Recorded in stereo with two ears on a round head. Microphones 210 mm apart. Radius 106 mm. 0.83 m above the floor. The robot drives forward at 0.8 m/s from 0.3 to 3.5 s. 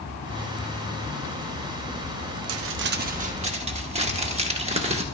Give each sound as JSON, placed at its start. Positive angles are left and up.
{"t": 2.5, "sound": "crumpling", "side_deg": -75, "distance_m": 0.5}